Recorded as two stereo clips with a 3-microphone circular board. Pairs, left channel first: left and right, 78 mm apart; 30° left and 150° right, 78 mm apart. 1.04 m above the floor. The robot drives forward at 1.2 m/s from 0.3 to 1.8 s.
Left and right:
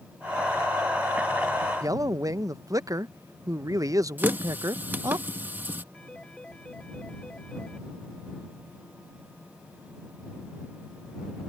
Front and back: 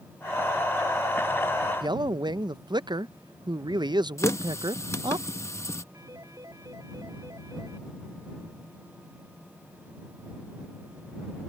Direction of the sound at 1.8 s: 135° right.